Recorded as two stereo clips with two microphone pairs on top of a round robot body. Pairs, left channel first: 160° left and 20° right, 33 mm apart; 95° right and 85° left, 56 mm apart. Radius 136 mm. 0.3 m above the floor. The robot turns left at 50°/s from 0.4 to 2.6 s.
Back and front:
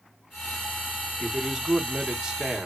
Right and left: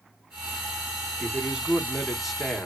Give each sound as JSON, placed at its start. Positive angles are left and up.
{"t": 1.2, "sound": "a man speaking", "azimuth_deg": 50, "distance_m": 1.0}